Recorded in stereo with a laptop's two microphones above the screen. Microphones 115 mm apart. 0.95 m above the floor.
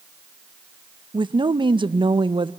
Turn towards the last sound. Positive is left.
turn(degrees=-45)  # may be behind; listen again after turning